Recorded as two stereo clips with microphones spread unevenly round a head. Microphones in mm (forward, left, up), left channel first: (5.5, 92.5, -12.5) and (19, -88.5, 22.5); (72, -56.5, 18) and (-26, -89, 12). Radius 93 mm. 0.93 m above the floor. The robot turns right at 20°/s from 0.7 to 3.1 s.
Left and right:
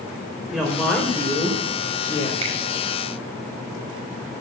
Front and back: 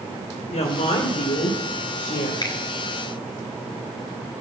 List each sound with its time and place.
0.5 s a woman speaking: 5° left, 3 m; by 2.3 s 35° left, 3 m
2.4 s a finger snap: 30° right, 4.5 m; by 2.6 s 25° right, 4.5 m